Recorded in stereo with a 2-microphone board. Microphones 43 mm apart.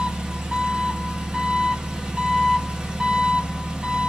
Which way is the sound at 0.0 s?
20° right (ahead or behind).